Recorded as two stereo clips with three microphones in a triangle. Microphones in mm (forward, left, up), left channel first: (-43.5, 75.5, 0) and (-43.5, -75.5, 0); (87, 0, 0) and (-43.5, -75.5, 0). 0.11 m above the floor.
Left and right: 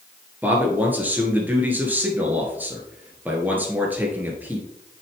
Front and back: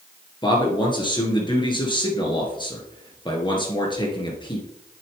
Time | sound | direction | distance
0.4 | a man speaking | 15° right | 2 m